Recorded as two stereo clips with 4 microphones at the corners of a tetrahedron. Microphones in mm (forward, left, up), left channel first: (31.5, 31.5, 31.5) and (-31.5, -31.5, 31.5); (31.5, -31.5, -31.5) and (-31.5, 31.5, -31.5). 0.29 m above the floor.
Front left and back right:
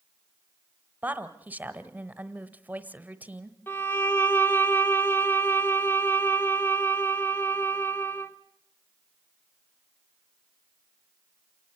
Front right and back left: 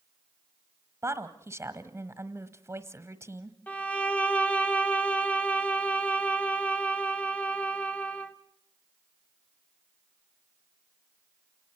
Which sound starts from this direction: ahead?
A violin, at 3.7 s.